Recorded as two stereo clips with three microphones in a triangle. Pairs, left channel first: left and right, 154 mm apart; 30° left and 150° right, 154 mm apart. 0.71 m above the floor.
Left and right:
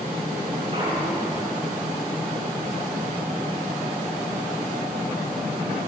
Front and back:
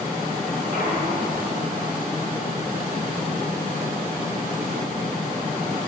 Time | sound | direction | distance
0.7 | a clunk | 140° right | 9 m